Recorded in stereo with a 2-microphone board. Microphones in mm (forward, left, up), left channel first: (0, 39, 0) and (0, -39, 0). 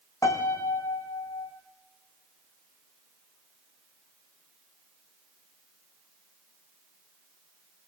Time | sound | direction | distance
0.2 | a piano | 40° left (ahead or behind) | 3.5 m